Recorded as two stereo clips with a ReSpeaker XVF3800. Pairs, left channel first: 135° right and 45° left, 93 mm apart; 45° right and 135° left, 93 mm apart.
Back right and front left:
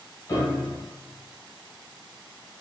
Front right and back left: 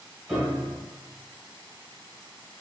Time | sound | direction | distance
0.3 | a piano | 125° right | 1.2 m